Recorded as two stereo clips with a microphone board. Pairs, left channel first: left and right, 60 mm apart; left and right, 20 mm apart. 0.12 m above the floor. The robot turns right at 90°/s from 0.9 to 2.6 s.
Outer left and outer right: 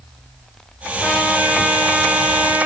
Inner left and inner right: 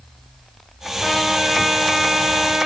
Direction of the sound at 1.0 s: 155° left.